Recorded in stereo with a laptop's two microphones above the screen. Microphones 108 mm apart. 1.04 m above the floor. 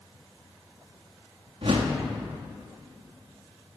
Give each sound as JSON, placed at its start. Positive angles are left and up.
{"t": 1.6, "sound": "a whoosh", "side_deg": -65, "distance_m": 1.8}